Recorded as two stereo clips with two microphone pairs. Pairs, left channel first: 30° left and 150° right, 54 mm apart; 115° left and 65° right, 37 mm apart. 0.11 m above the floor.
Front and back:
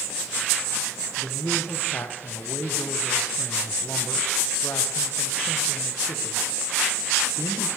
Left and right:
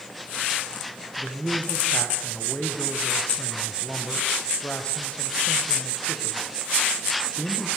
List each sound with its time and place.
1.2 s a man speaking: 60° left, 5.5 m